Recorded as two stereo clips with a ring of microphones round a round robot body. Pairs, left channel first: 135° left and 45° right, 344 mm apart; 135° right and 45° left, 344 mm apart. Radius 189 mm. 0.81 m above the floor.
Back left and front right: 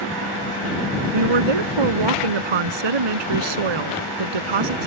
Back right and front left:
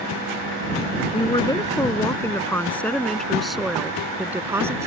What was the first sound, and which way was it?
A woman speaking, 60° right.